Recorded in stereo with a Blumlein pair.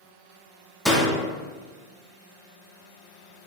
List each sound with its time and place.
0.8 s a door slam: straight ahead, 0.7 m